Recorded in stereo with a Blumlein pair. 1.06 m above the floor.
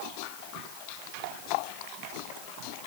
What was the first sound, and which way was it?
Only background noise.